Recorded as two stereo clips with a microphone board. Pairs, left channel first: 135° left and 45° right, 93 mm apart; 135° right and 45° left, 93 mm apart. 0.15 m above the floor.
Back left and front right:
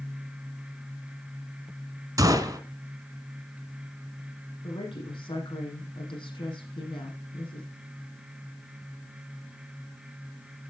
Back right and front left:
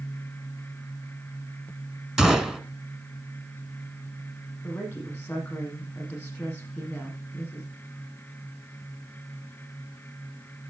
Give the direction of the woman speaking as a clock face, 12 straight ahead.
7 o'clock.